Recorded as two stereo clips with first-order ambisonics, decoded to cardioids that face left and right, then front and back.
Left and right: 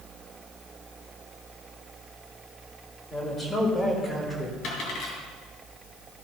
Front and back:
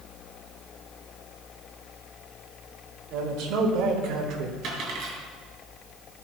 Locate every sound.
3.1 s a man speaking: 165° left, 2.5 m; by 4.5 s 175° left, 1.6 m
4.6 s a dropped coin: 130° left, 3.5 m